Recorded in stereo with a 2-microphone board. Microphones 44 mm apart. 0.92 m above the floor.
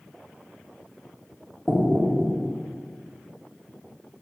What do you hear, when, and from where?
1.7 s knocking: centre (ahead or behind), 1.9 m